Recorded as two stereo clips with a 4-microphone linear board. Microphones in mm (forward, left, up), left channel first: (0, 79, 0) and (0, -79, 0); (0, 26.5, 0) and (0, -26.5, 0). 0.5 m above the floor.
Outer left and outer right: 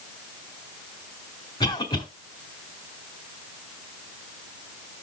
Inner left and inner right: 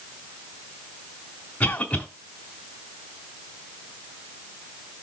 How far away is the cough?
About 1.6 m.